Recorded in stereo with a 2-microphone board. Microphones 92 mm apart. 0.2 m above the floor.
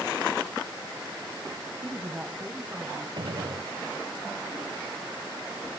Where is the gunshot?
60° right (ahead or behind), 0.8 m.